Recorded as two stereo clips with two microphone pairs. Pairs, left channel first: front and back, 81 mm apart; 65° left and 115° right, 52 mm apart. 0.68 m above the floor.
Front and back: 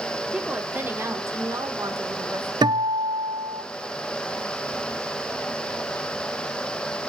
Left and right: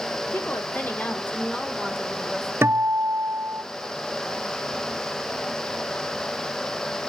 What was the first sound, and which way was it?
A woman speaking, 105° left.